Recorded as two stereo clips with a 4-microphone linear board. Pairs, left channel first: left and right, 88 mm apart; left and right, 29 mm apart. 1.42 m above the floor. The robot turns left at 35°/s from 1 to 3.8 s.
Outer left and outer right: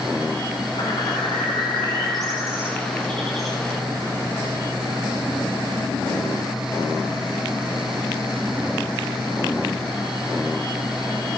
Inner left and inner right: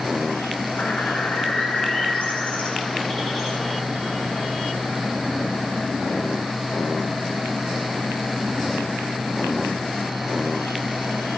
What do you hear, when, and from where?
0.8 s a bird: 85° left, 10 m; by 3.6 s 5° right, 10 m